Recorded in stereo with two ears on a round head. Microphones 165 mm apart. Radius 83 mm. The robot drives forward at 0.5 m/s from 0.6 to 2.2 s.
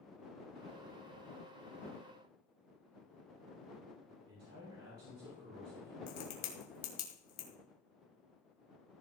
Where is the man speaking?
80° right, 4.5 m.